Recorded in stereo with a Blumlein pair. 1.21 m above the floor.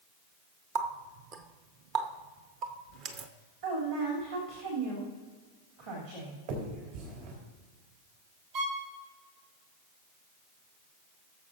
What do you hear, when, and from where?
0.8 s a running tap: 35° right, 0.9 m
3.6 s a woman speaking: 50° right, 3 m
6.5 s a finger snap: 50° right, 3.5 m
8.5 s a violin: 45° right, 2.5 m